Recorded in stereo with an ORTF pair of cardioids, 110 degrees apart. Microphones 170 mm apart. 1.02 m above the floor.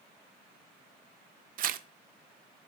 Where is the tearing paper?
60° right, 0.6 m.